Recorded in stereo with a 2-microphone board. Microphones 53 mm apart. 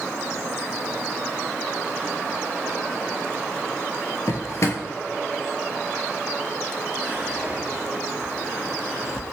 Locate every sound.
4.3 s a drawer: 65° left (ahead or behind), 0.6 m
7.0 s whispering: 20° right (ahead or behind), 1.5 m